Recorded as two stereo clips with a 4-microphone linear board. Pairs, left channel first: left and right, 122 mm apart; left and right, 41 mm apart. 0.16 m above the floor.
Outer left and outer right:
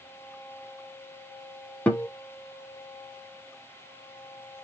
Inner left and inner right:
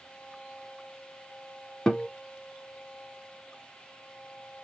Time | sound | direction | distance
1.9 | a guitar | 10° left (ahead or behind) | 0.8 m